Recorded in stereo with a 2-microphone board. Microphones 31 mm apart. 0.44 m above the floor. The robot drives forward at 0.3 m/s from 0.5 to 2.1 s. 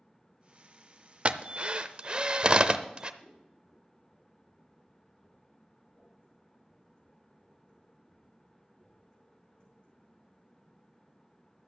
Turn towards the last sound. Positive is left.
turn(degrees=35)  # may be behind; listen again after turning